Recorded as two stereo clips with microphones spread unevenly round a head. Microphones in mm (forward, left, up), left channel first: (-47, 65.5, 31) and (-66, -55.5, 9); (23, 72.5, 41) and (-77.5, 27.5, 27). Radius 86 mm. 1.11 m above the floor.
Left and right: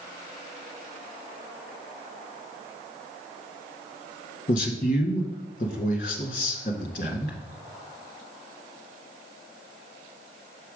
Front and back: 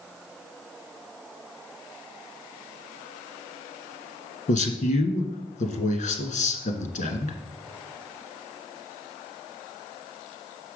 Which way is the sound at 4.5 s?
30° left.